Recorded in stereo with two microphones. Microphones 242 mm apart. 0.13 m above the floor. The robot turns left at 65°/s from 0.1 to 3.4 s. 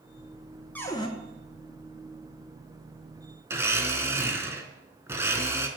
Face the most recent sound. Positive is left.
turn(degrees=-10)  # may be behind; listen again after turning